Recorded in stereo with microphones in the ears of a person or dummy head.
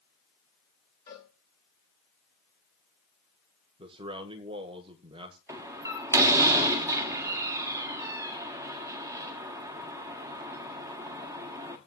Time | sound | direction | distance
1.1 | a cowbell | 15° left (ahead or behind) | 5 m
3.8 | a man speaking | 25° right (ahead or behind) | 1.4 m
5.5 | a door slam | 15° right (ahead or behind) | 1.8 m